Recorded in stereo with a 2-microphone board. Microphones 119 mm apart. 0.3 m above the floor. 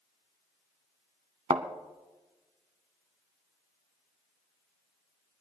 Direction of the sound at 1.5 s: 60° right (ahead or behind).